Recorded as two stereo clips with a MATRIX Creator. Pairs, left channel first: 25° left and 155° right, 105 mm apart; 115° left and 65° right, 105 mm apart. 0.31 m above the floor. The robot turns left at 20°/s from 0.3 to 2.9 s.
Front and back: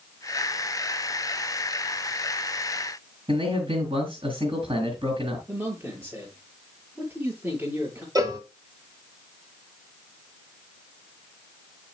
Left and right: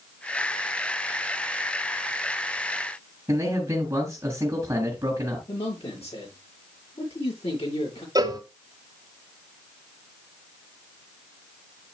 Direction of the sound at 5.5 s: 130° left.